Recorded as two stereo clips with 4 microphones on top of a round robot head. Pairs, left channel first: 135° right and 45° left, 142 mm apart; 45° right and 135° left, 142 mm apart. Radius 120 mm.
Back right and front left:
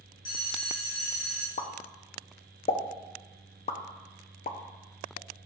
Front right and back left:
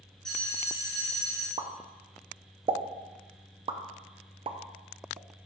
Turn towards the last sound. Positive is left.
turn(degrees=-175)